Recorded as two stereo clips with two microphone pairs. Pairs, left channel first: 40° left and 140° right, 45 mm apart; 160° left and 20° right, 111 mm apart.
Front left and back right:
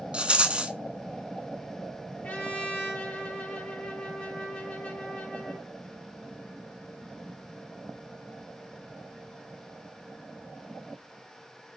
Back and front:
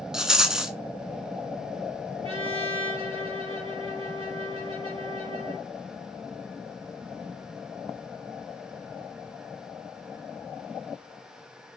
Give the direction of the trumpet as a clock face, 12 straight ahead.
12 o'clock.